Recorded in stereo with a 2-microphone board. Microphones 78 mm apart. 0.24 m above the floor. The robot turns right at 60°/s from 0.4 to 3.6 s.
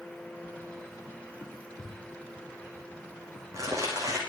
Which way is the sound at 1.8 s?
70° left (ahead or behind).